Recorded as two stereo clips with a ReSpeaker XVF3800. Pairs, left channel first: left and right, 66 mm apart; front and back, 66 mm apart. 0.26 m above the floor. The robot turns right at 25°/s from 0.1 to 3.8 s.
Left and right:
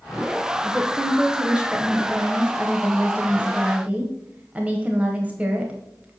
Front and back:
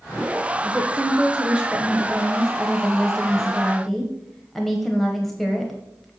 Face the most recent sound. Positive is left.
turn(degrees=-80)